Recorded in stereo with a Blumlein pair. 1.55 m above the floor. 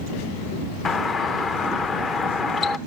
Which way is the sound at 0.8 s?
20° left.